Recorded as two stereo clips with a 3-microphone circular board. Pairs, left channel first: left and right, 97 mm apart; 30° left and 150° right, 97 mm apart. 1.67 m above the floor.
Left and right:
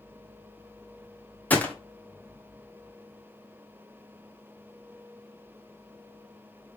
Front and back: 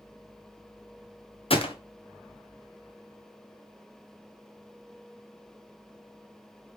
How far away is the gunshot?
About 0.8 m.